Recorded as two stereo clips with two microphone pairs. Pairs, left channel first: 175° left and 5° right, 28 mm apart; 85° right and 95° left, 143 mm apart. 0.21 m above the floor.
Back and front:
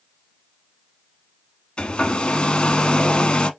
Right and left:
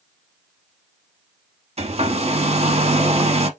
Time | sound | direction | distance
1.8 | a hair dryer | 125° left | 0.7 m